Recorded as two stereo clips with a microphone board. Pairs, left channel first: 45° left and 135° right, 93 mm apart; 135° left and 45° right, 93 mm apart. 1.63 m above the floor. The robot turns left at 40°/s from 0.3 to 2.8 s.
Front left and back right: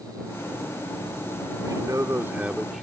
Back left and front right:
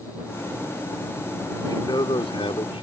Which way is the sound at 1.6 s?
175° right.